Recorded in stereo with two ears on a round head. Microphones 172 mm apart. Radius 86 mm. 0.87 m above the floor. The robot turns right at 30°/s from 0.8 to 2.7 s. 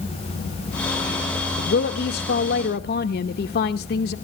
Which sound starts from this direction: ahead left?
A woman speaking, at 1.6 s.